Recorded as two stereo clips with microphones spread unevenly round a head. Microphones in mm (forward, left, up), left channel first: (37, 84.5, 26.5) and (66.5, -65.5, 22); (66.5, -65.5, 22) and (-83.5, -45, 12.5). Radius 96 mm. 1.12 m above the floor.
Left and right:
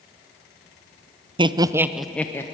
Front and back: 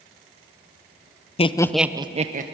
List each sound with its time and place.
1.4 s laughter: 40° right, 0.9 m; by 2.4 s 175° left, 1.2 m